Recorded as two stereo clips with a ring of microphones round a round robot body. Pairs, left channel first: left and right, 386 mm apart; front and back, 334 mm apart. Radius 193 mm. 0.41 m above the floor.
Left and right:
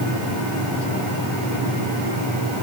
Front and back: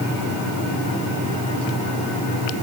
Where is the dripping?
I don't hear dripping.